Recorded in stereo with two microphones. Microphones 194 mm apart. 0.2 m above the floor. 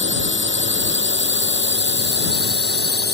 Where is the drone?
75° right (ahead or behind); by 3.1 s 55° right (ahead or behind).